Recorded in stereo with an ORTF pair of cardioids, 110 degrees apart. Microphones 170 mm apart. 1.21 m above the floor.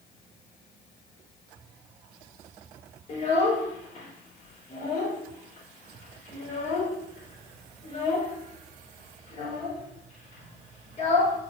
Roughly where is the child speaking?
Ahead left.